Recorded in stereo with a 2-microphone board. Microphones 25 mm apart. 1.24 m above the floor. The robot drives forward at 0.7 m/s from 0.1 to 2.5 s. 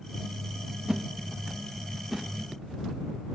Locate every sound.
0.9 s a whoosh: 20° right (ahead or behind), 0.6 m; by 2.3 s 10° right (ahead or behind), 1.4 m